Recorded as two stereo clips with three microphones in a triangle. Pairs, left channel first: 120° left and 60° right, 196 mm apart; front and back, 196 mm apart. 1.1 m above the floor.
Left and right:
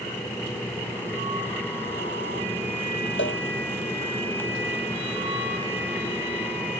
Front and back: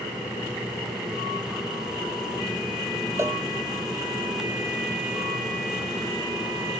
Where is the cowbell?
105° left.